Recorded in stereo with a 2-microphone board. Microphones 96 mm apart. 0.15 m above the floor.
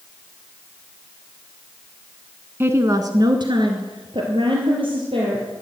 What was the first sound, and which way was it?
A woman speaking, 25° right (ahead or behind).